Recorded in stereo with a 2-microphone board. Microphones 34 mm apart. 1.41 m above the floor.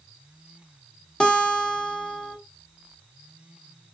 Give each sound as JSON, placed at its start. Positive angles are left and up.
{"t": 1.2, "sound": "a guitar", "side_deg": 30, "distance_m": 1.1}